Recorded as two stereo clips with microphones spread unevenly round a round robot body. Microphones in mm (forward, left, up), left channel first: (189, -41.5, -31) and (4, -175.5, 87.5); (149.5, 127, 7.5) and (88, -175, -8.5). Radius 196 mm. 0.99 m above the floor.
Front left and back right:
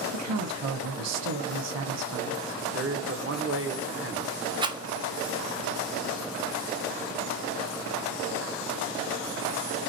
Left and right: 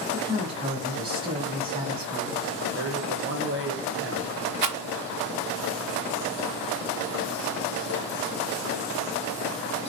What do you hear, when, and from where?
0.1 s a woman speaking: 165° right, 0.7 m
2.7 s a man speaking: 90° right, 0.8 m
4.6 s a rattle: 100° right, 0.6 m